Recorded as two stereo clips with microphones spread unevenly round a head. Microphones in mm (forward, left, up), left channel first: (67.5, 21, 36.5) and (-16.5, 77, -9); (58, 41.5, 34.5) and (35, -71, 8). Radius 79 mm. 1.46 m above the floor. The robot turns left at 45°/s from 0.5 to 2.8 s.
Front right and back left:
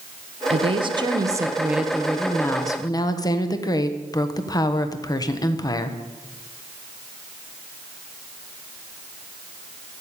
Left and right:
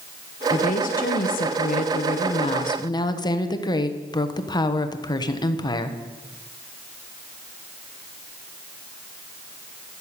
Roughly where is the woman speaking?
Behind left.